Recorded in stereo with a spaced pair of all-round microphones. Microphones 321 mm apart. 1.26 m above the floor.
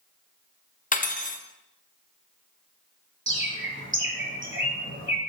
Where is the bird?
40° right (ahead or behind), 1.3 m.